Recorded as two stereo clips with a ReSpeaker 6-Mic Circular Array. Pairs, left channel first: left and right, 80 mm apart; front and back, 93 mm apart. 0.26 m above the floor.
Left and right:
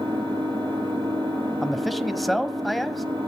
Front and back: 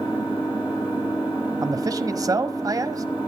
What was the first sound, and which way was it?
An engine running, 110° right.